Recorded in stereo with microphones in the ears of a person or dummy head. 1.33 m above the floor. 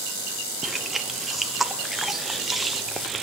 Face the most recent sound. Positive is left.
turn(degrees=-5)  # may be behind; listen again after turning